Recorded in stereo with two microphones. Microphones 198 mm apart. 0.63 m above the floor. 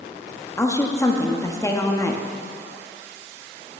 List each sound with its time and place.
0.6 s a woman speaking: 15° left (ahead or behind), 0.6 m